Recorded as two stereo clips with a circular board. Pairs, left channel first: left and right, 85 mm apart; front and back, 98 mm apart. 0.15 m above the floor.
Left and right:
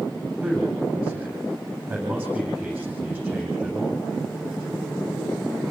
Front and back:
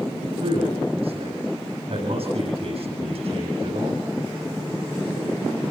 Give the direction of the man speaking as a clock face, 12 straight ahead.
5 o'clock.